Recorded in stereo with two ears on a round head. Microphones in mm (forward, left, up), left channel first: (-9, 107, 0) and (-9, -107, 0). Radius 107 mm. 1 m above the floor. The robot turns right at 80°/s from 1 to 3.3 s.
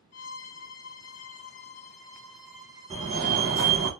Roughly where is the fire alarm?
Centre.